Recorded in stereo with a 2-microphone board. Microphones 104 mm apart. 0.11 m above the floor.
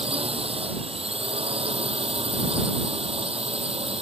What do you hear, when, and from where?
0.0 s a drone: 60° right (ahead or behind)